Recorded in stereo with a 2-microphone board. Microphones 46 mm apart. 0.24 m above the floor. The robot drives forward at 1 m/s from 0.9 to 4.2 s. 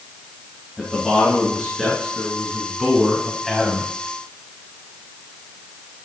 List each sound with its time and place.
0.8 s a man speaking: centre (ahead or behind), 4 m